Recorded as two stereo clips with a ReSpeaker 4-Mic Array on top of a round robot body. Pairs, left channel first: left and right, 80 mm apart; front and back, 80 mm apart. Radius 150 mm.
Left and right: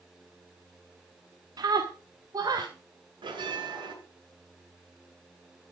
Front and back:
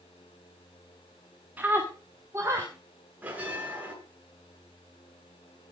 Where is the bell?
110° right, 8.5 m.